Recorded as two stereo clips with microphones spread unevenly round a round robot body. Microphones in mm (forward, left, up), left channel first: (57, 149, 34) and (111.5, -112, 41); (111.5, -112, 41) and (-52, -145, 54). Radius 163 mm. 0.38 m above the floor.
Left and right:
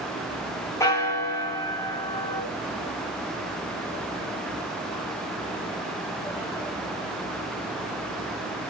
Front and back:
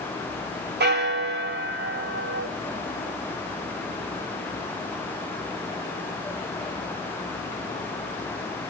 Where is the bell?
Straight behind, 2 m.